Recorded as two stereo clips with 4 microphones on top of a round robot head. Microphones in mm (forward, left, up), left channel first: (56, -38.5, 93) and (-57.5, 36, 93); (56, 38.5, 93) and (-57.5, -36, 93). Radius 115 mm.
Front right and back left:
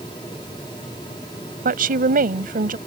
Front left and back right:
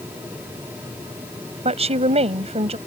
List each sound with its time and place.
1.6 s a woman speaking: 165° left